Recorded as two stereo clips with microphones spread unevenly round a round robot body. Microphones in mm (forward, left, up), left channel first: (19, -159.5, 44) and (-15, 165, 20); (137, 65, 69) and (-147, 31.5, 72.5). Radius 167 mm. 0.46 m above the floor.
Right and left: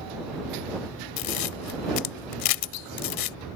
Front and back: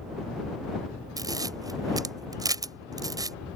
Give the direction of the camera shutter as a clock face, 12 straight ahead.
3 o'clock.